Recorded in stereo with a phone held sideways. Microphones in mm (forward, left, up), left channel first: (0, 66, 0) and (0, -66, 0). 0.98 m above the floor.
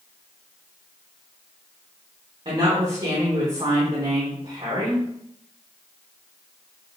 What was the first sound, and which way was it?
A woman speaking, 45° right (ahead or behind).